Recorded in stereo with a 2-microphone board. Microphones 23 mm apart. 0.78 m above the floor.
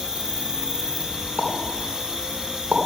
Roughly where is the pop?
Right.